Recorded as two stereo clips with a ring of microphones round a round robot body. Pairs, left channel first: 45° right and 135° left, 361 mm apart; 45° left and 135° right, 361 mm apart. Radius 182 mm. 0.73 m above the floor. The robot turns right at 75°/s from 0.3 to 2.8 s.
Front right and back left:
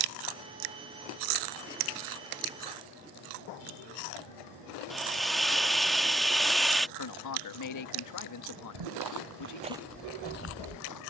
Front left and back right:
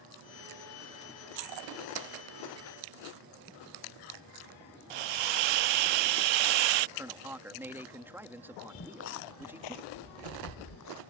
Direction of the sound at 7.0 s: 50° right.